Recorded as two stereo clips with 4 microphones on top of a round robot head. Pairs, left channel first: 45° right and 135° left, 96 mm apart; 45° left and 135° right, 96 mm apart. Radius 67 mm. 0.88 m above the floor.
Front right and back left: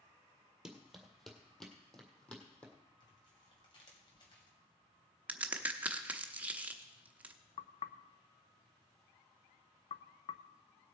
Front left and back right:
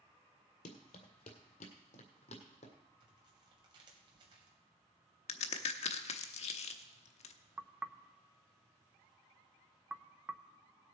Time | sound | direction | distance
0.7 | running footsteps | 50° left | 1.4 m
3.0 | tearing paper | 95° right | 2.5 m
5.3 | a crack | 60° left | 0.8 m
7.6 | knocking | 60° right | 0.5 m